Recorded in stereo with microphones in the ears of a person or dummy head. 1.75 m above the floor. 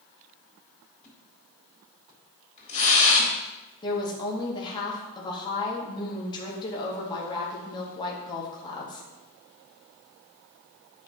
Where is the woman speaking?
25° left (ahead or behind), 2.0 m.